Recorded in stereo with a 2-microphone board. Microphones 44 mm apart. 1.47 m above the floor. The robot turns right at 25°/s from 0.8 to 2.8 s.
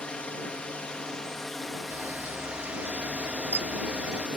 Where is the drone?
155° left; by 4.4 s 155° right.